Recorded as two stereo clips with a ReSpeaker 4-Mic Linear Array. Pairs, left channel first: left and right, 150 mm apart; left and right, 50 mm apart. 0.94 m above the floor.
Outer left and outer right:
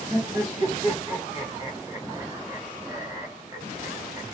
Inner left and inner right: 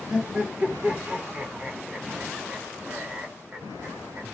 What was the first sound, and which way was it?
Laughter, 20° right (ahead or behind).